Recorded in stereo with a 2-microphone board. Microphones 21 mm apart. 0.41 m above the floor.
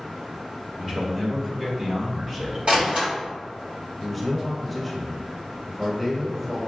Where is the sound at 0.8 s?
15° right (ahead or behind), 1.0 m; by 2.6 s 20° right (ahead or behind), 1.0 m.